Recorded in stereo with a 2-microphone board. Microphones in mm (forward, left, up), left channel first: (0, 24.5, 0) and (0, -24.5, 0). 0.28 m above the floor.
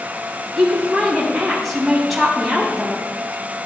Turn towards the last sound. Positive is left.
turn(degrees=-5)  # may be behind; listen again after turning